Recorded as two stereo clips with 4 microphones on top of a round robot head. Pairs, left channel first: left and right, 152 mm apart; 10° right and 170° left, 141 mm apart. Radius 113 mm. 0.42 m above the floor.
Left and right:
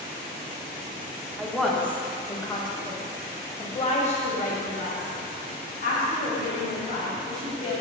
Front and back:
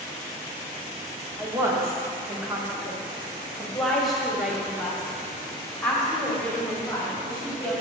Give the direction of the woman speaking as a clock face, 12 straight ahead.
6 o'clock.